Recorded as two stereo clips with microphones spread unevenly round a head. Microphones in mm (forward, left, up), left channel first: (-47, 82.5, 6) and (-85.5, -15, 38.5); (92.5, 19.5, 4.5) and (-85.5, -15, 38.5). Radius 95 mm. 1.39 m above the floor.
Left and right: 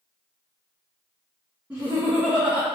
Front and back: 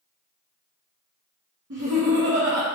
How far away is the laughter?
About 0.9 m.